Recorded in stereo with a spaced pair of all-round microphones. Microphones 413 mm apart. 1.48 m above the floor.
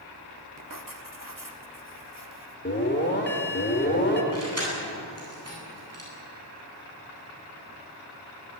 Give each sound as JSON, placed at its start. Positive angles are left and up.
{"t": 0.6, "sound": "writing", "side_deg": -50, "distance_m": 1.8}
{"t": 2.6, "sound": "an alarm", "side_deg": 25, "distance_m": 4.0}
{"t": 4.3, "sound": "keys jangling", "side_deg": -35, "distance_m": 9.5}